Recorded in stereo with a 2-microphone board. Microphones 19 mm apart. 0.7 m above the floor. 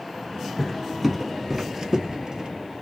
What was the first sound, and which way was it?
Footsteps, 5° left (ahead or behind).